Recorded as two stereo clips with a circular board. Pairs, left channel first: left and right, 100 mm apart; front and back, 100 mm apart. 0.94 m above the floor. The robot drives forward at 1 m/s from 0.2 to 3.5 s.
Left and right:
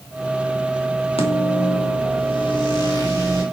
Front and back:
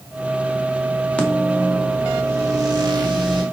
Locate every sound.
1.2 s a microwave: 80° left, 1.4 m; by 3.4 s 145° left, 2.5 m